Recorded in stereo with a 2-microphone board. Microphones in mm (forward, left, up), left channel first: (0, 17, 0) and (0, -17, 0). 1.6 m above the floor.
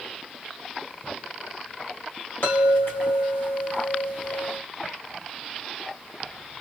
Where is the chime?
80° left, 2.5 m.